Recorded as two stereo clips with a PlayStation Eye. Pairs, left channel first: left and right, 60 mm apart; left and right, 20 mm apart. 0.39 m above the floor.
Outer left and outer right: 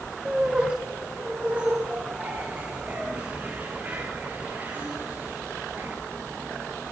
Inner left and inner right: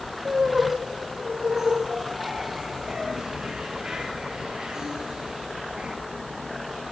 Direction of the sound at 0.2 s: 20° right (ahead or behind).